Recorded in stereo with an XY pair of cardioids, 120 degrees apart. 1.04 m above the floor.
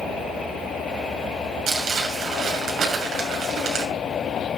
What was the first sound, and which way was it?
Crumpling, 50° right.